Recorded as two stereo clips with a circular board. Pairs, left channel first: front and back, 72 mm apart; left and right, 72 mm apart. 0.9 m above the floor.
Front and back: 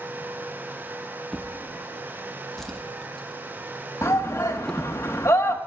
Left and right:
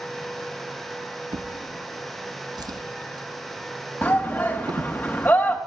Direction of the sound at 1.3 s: 85° right.